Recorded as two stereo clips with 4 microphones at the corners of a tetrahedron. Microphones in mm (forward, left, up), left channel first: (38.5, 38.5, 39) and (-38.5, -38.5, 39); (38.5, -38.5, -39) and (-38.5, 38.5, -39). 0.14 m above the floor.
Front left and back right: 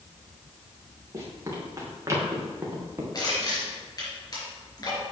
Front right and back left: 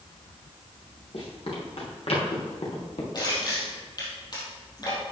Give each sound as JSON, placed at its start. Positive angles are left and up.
{"t": 1.1, "sound": "running footsteps", "azimuth_deg": -75, "distance_m": 4.5}
{"t": 3.1, "sound": "crushing", "azimuth_deg": 0, "distance_m": 4.0}